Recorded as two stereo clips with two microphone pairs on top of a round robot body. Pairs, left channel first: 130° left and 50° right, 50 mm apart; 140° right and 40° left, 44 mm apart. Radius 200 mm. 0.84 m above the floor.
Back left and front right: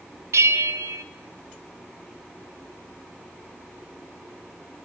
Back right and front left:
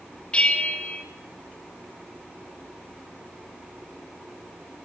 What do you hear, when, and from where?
0.3 s a bell: 75° right, 0.5 m